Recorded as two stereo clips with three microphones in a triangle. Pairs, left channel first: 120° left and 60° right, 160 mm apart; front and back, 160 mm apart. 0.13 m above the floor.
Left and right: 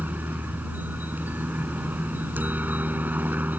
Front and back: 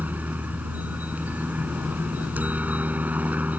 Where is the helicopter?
120° right.